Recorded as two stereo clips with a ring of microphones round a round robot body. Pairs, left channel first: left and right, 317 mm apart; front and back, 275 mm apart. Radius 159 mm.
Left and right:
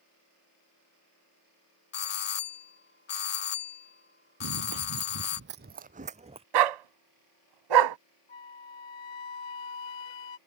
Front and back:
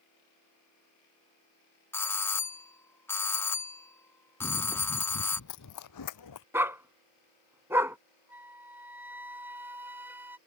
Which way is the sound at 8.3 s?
95° left.